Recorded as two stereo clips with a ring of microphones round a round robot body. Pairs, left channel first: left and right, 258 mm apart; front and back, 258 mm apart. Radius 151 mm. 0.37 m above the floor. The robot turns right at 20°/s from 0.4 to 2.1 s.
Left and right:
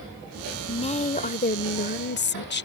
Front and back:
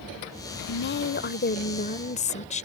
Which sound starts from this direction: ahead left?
A woman speaking, at 0.7 s.